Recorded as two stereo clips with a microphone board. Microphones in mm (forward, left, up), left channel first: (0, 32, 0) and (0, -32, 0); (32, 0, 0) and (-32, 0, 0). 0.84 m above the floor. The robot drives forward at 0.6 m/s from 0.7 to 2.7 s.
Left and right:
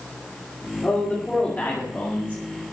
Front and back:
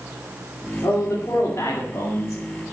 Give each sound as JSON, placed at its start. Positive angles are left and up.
{"t": 0.8, "sound": "a man speaking", "azimuth_deg": 25, "distance_m": 2.5}